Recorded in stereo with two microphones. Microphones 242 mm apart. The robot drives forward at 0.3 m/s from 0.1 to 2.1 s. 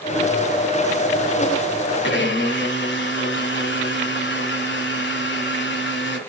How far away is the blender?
About 1.6 m.